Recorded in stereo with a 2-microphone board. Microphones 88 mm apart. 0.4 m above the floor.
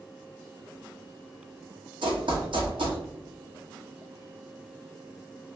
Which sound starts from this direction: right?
Running footsteps, at 2.0 s.